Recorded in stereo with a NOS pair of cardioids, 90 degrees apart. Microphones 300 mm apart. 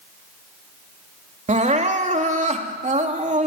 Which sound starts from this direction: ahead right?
Crying, at 1.5 s.